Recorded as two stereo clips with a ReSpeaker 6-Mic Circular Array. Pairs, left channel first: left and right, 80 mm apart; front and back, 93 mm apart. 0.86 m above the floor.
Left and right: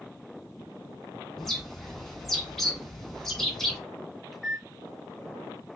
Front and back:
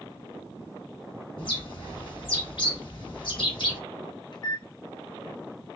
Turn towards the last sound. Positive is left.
turn(degrees=0)